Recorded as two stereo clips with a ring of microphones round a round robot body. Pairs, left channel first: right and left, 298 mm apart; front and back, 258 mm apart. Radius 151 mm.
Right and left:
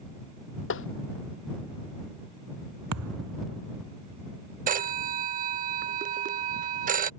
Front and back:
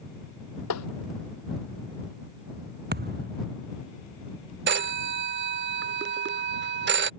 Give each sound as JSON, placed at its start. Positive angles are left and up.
{"t": 0.7, "sound": "tapping", "azimuth_deg": -40}
{"t": 2.9, "sound": "a thud", "azimuth_deg": 130}
{"t": 4.7, "sound": "a phone ringing", "azimuth_deg": 145}